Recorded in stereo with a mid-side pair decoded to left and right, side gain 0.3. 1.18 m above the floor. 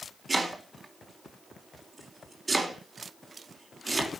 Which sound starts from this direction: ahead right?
Chopping, at 0.3 s.